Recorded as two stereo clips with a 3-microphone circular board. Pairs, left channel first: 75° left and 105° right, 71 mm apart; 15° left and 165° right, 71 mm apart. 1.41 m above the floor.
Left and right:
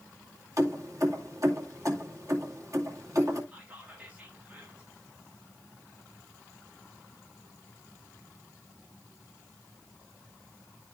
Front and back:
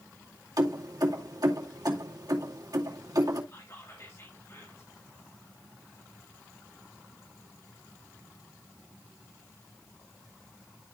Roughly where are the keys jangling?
Behind right.